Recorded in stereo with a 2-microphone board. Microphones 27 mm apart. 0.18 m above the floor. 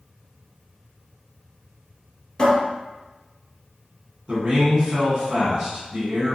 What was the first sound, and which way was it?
A cupboard door, 25° left (ahead or behind).